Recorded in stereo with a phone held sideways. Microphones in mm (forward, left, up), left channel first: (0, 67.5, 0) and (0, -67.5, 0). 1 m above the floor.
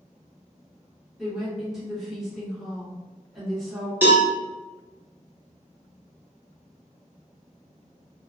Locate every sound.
1.2 s a woman speaking: 5° right (ahead or behind), 1.5 m
4.0 s a cowbell: 15° right (ahead or behind), 1.0 m